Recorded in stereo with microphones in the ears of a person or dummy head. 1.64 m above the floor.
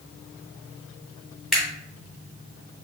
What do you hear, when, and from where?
1.5 s a camera shutter: centre (ahead or behind), 1.5 m